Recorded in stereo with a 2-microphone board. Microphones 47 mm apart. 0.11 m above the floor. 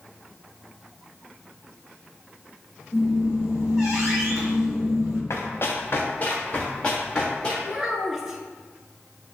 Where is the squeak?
Centre (ahead or behind), 1.7 m.